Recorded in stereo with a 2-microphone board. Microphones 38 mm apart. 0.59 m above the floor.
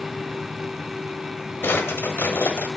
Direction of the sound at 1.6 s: 85° left.